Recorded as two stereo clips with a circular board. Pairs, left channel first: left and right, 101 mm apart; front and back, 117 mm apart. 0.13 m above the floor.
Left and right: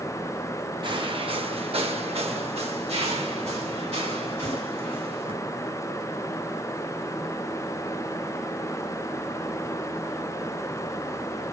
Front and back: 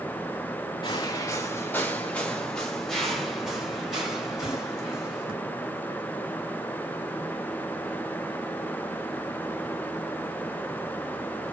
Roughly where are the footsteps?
Ahead right.